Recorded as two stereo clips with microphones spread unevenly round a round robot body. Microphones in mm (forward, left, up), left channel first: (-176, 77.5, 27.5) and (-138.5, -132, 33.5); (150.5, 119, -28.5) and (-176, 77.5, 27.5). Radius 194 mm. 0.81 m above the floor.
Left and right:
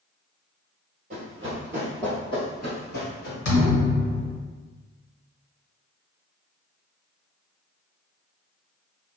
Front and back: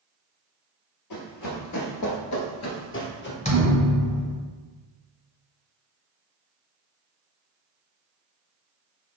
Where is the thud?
80° left, 1.3 m.